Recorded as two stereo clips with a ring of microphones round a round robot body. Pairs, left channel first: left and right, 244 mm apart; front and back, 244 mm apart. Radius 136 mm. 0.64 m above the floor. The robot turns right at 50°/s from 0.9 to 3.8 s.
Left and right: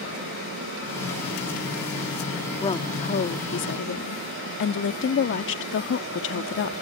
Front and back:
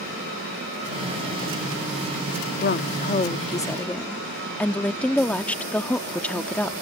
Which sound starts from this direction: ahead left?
A woman speaking, at 2.6 s.